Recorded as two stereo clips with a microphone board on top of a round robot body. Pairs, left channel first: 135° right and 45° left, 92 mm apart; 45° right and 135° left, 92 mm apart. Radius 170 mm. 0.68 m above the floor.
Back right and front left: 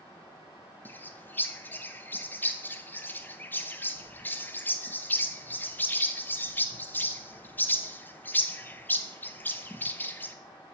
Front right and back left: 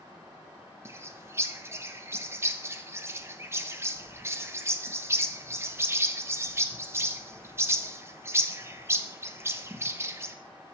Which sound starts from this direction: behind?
A bird, at 0.8 s.